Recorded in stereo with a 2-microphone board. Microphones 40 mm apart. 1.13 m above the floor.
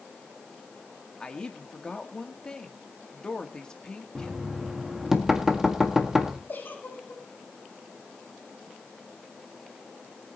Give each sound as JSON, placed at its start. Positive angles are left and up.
{"t": 1.2, "sound": "a woman speaking", "side_deg": 20, "distance_m": 1.9}
{"t": 4.2, "sound": "knocking", "side_deg": -10, "distance_m": 1.8}
{"t": 6.5, "sound": "a giggle", "side_deg": 55, "distance_m": 5.5}